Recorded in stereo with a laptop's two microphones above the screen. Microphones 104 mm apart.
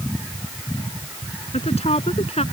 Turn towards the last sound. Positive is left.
turn(degrees=90)